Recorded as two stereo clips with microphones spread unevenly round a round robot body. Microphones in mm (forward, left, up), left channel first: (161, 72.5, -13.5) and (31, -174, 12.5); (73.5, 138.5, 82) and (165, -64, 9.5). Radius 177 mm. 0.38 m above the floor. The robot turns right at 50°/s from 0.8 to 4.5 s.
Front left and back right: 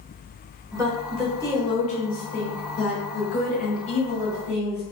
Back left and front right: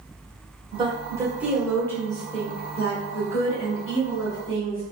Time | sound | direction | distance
0.7 | a woman speaking | 40° right | 1.2 m